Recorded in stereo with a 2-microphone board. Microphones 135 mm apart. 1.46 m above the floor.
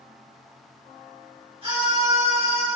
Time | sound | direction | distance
1.6 | a scream | 45° right (ahead or behind) | 6 m